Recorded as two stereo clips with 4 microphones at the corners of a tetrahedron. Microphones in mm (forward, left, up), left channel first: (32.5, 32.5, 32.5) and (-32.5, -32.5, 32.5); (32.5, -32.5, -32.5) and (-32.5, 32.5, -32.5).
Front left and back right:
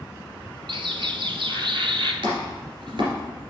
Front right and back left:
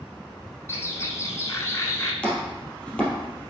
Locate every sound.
0.7 s a bird: 105° right, 0.9 m
2.2 s chopping: 120° right, 2.5 m